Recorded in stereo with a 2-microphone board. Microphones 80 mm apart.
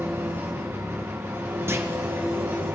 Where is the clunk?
30° right (ahead or behind), 0.7 m.